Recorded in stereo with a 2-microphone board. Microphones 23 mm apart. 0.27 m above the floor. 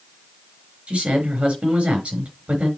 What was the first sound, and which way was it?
A man speaking, 65° right (ahead or behind).